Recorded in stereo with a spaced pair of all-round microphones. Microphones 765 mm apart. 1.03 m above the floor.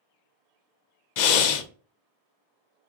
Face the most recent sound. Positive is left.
turn(degrees=70)  # may be behind; listen again after turning